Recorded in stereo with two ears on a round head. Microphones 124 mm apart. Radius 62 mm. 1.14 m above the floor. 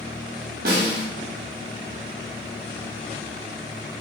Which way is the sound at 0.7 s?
75° right (ahead or behind).